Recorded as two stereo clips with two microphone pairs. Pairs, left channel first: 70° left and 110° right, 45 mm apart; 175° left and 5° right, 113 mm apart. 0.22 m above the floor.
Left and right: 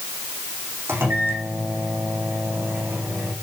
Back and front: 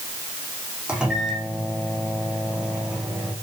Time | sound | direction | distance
0.9 | a microwave | 85° right | 9.5 m